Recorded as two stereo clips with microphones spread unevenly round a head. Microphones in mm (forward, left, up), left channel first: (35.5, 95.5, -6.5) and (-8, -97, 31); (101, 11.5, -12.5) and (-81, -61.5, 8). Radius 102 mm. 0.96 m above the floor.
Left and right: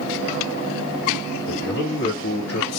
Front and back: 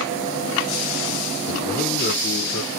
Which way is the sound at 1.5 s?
80° left.